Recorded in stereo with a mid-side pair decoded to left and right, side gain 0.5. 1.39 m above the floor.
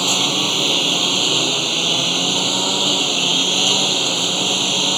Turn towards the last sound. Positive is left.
turn(degrees=-10)